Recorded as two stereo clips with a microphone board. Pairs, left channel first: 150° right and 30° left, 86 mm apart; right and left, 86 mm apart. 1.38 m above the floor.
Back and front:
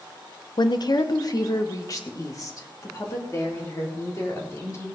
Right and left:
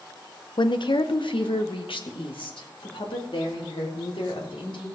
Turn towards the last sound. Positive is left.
turn(degrees=-95)